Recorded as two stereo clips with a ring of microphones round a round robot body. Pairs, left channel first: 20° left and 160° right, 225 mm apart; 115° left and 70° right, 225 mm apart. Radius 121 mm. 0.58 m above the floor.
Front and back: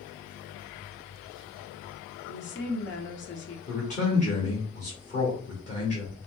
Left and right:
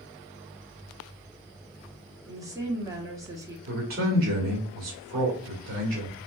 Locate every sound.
2.3 s a woman speaking: 5° left, 1.2 m
3.7 s a man speaking: 30° right, 1.8 m